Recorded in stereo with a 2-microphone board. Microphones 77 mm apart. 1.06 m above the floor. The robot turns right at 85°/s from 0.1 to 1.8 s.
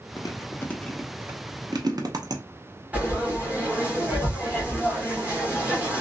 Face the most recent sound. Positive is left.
turn(degrees=-20)  # may be behind; listen again after turning